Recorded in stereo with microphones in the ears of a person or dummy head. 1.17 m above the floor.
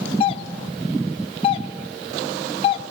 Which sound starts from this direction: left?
A doorbell, at 0.2 s.